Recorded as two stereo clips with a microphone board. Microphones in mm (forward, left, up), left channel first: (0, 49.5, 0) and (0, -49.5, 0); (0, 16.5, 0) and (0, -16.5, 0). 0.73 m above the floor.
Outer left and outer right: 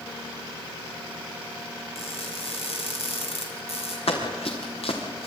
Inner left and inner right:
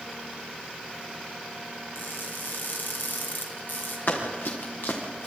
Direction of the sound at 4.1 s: 75° left (ahead or behind).